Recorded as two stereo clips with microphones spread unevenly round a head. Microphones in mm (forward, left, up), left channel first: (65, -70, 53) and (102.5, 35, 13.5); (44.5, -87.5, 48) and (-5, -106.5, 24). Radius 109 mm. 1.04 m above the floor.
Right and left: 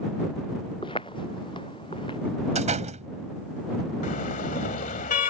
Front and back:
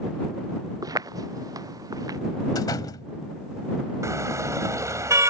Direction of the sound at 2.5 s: 50° left.